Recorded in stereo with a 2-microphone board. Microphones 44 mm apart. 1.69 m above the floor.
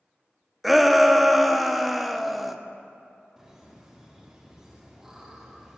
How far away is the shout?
About 0.9 m.